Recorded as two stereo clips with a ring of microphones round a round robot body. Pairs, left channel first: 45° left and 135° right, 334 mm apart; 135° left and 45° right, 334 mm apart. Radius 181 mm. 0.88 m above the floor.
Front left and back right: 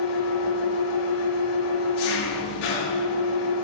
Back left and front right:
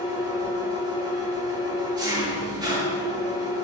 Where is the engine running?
35° left, 6 m.